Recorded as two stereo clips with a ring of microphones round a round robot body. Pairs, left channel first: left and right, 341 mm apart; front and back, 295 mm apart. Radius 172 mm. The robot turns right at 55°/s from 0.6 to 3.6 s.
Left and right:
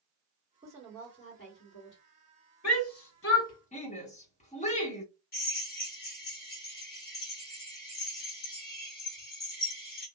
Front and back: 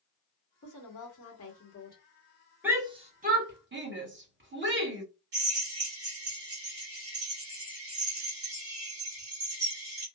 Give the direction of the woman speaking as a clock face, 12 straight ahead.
12 o'clock.